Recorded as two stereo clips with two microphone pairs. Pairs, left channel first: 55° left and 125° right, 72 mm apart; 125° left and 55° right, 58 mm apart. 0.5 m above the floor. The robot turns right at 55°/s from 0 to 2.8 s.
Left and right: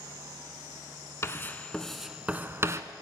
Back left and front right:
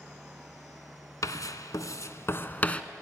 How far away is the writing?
About 1.0 m.